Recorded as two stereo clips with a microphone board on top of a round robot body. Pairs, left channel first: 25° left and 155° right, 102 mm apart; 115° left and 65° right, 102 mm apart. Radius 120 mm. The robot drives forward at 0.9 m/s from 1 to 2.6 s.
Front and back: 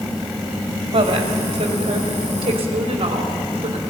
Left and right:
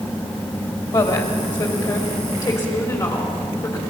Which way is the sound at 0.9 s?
155° left.